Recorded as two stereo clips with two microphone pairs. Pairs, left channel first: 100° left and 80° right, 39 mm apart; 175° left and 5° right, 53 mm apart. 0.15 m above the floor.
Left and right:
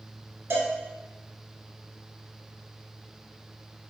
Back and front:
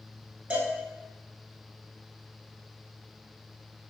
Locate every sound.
0.5 s a cowbell: 70° right, 0.8 m